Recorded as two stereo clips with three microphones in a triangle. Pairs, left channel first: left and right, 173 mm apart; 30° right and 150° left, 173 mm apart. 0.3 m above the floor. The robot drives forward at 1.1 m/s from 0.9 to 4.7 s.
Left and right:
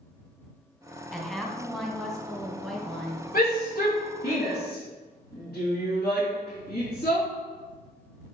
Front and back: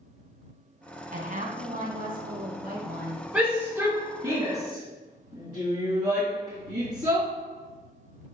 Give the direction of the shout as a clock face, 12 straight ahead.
9 o'clock.